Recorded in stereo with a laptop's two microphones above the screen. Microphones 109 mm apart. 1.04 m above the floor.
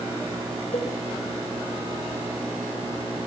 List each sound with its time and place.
0.7 s a cowbell: 85° left, 3 m